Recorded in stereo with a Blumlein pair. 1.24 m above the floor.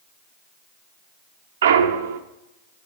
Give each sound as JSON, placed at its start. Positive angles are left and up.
{"t": 1.6, "sound": "a clunk", "azimuth_deg": -60, "distance_m": 0.5}